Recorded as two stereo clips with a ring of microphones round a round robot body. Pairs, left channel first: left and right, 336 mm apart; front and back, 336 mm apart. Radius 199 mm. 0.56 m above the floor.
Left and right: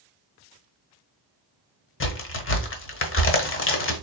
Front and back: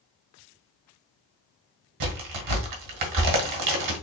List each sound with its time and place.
2.0 s a crack: 145° left, 1.2 m